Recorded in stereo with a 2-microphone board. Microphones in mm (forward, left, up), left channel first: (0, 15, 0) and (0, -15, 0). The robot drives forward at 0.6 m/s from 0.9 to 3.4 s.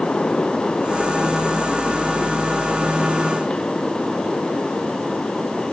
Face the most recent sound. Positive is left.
No sound to turn to.